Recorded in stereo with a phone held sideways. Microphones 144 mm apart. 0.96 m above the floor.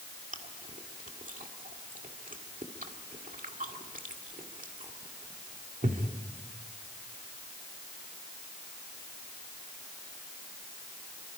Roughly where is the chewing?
Right.